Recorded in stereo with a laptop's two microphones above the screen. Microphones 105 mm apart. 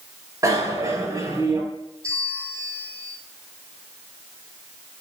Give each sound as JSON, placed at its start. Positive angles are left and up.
{"t": 0.4, "sound": "a bicycle bell", "side_deg": -30, "distance_m": 3.0}
{"t": 2.0, "sound": "a bell", "side_deg": -30, "distance_m": 8.5}